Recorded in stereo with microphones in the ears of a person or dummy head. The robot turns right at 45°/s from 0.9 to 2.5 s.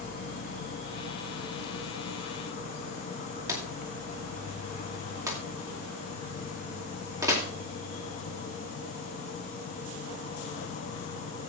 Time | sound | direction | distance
0.0 | an insect | 60° left | 0.8 m
3.5 | a drawer | 20° right (ahead or behind) | 2.5 m